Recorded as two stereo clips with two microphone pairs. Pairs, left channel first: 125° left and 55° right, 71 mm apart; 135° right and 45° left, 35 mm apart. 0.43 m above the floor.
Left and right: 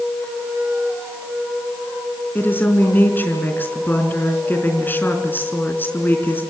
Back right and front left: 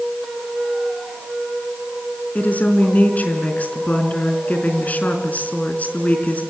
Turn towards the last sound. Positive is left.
turn(degrees=-175)